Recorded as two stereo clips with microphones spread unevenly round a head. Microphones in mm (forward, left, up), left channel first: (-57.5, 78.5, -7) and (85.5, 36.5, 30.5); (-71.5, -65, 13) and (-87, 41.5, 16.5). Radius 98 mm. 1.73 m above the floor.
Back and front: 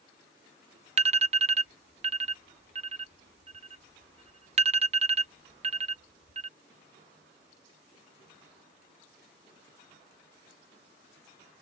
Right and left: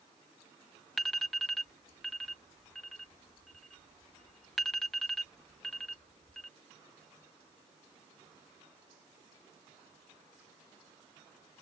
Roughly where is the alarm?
Ahead.